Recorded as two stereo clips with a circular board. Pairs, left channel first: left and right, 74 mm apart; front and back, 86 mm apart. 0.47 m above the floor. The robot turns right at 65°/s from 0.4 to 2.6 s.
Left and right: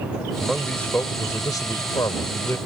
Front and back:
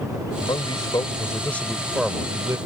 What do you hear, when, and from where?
0.4 s a man speaking: 5° right; by 2.6 s 135° left